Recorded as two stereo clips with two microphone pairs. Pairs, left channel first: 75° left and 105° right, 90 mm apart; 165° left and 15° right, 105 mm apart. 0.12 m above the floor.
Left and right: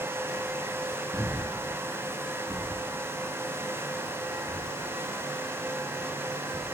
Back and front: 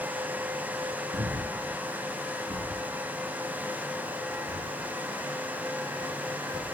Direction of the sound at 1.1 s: 5° left.